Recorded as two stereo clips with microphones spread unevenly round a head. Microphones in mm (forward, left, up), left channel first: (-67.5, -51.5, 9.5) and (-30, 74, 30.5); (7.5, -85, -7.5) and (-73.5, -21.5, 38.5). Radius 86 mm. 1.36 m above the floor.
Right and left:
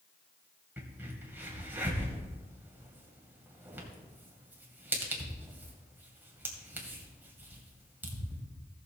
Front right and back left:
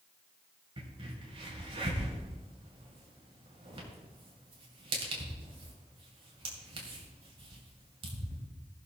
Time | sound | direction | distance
0.8 | a crack | 145° left | 2.5 m